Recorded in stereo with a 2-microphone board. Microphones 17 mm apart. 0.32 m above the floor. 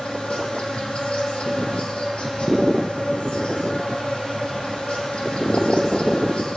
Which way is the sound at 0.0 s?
75° left (ahead or behind).